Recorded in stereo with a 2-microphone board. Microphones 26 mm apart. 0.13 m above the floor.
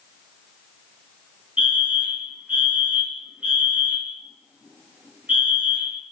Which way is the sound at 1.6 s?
55° right (ahead or behind).